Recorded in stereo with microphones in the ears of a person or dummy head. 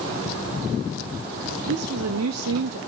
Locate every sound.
1.7 s a woman speaking: 80° right, 0.7 m